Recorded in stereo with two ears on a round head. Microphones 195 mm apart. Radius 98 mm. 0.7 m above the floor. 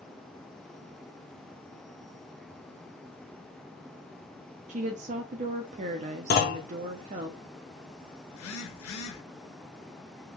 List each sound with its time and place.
4.7 s a woman speaking: 35° right (ahead or behind), 0.6 m
6.3 s a clunk: 45° left (ahead or behind), 0.7 m
8.3 s a phone buzzing: 75° left (ahead or behind), 0.8 m